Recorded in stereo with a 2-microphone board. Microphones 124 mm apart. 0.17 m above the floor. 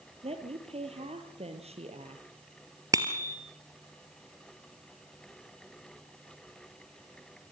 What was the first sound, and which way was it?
A woman speaking, 55° right (ahead or behind).